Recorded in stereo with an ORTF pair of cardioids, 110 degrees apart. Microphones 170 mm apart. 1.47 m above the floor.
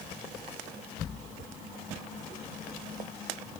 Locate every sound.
Only background noise.